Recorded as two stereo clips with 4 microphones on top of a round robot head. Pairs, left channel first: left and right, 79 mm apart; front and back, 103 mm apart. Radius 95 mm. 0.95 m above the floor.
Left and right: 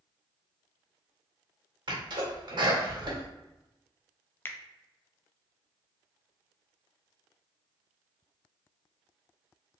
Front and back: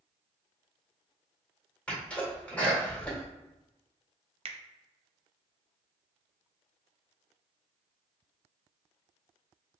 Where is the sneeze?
80° right, 1.7 m.